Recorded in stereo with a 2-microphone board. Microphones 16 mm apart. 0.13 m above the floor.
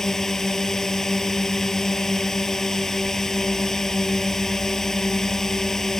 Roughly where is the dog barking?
No dog barking in this recording.